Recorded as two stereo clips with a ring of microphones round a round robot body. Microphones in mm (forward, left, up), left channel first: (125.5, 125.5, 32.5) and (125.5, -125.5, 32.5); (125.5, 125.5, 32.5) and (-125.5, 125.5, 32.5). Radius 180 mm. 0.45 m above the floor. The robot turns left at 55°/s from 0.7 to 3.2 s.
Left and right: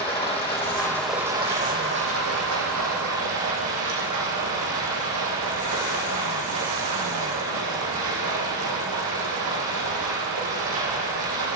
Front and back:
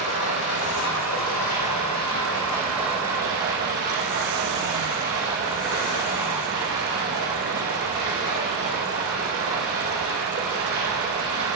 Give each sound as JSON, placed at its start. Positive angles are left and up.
{"t": 0.0, "sound": "running water", "azimuth_deg": 20, "distance_m": 5.5}